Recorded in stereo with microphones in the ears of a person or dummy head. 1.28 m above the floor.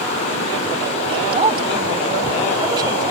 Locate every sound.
1.1 s a woman speaking: 35° right (ahead or behind); by 3.1 s 20° right (ahead or behind)